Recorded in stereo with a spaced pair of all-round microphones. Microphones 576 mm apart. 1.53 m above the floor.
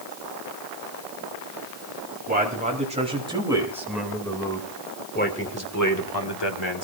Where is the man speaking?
15° right (ahead or behind), 4 m; by 6.8 s 55° left (ahead or behind), 1.8 m.